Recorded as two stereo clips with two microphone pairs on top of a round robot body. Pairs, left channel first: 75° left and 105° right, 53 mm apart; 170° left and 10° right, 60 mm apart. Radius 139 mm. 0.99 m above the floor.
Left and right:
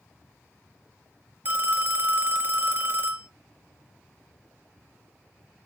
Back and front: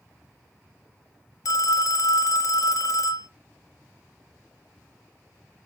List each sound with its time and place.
1.4 s a phone ringing: 160° right, 0.8 m